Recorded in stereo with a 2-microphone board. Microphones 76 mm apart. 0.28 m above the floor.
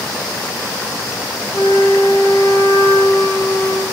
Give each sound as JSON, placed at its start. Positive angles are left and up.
{"t": 1.5, "sound": "a flute", "side_deg": 65, "distance_m": 6.5}